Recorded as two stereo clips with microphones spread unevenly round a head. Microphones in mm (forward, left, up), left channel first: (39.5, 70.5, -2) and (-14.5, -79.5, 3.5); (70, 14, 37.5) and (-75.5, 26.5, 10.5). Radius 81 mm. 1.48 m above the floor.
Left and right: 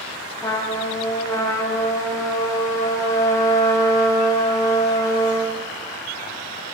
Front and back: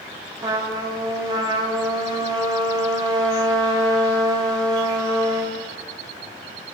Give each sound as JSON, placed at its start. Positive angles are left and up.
{"t": 0.4, "sound": "a trumpet", "azimuth_deg": 120, "distance_m": 1.0}